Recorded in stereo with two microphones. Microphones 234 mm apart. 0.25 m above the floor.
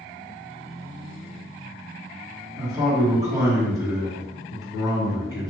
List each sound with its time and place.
2.6 s a man speaking: 15° right (ahead or behind), 1.5 m